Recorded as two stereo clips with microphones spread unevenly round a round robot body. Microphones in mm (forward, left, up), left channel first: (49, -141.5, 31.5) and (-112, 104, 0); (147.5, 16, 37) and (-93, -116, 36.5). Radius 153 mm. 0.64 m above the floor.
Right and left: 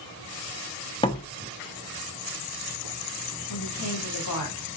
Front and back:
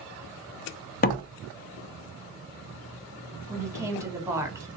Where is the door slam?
15° left, 0.6 m.